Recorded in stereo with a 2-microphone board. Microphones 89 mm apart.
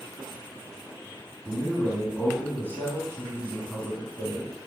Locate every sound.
1.4 s a man speaking: 25° left (ahead or behind), 3 m